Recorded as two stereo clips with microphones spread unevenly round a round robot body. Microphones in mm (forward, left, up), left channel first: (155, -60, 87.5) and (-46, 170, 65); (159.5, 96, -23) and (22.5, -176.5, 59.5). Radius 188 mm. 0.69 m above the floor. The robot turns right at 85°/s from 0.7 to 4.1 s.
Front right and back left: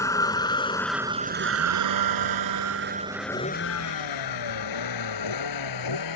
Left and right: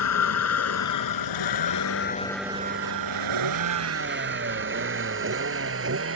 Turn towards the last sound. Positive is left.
turn(degrees=-75)